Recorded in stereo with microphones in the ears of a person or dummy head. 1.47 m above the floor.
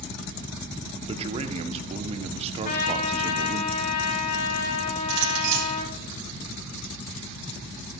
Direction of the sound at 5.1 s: 85° right.